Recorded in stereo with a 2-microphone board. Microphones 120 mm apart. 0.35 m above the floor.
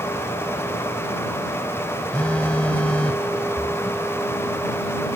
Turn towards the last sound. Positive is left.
turn(degrees=45)  # may be behind; listen again after turning